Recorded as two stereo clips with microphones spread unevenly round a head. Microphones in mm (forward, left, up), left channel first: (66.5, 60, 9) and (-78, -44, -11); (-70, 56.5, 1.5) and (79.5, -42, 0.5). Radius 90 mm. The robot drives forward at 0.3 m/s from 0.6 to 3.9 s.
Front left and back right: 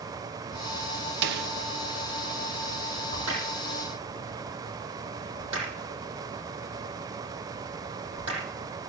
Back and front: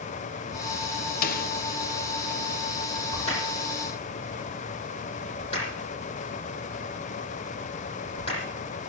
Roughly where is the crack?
Behind right.